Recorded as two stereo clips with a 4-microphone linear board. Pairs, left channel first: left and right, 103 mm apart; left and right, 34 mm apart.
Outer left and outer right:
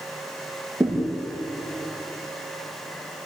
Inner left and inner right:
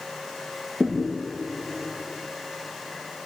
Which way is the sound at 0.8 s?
25° right (ahead or behind).